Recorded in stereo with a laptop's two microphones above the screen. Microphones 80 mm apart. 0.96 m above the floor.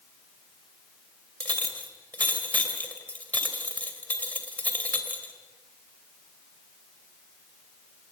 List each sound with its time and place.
1.4 s a clink: 20° left (ahead or behind), 3 m